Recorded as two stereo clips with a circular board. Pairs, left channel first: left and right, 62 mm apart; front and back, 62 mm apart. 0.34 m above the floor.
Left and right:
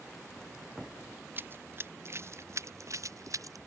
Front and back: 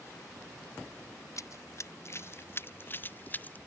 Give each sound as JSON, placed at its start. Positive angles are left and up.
{"t": 1.4, "sound": "running footsteps", "azimuth_deg": -35}